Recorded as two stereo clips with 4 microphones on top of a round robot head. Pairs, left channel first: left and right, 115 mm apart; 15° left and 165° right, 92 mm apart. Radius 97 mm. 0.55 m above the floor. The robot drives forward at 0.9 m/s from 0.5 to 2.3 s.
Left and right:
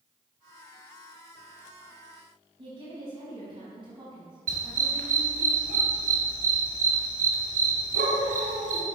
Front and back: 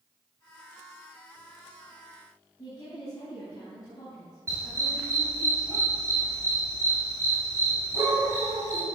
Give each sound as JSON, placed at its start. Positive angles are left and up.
{"t": 2.6, "sound": "a woman speaking", "azimuth_deg": -50, "distance_m": 4.5}
{"t": 4.5, "sound": "a dog barking", "azimuth_deg": -100, "distance_m": 1.7}